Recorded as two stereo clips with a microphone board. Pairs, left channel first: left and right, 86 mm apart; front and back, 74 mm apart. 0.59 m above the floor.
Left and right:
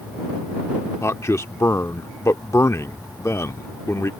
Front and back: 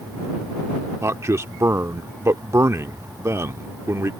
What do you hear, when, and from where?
1.0 s a man speaking: 140° left